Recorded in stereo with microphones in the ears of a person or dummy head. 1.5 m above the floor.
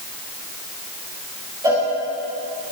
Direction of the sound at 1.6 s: 10° right (ahead or behind).